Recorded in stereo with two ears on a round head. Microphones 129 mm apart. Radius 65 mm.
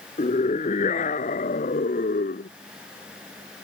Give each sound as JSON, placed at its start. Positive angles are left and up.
{"t": 0.2, "sound": "a scream", "side_deg": 45}